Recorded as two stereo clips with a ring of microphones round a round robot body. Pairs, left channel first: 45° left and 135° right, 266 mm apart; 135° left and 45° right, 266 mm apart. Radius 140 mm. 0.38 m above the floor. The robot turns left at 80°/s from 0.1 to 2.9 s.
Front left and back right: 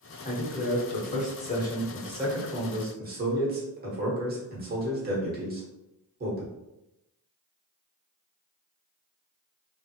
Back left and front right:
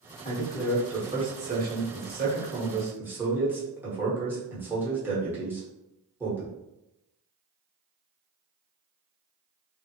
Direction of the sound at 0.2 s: 90° left.